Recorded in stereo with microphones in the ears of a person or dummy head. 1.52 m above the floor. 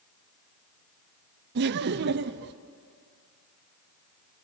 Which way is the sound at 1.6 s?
55° right (ahead or behind).